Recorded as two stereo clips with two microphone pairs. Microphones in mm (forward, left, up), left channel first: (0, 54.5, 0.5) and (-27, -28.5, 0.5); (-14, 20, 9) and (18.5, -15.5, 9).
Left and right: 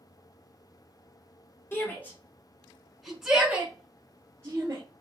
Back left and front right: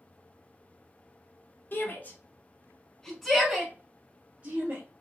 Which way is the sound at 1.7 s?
125° left.